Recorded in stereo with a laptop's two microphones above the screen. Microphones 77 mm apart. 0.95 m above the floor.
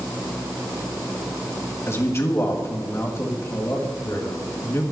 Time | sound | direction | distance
1.9 | a man speaking | 35° left (ahead or behind) | 1.6 m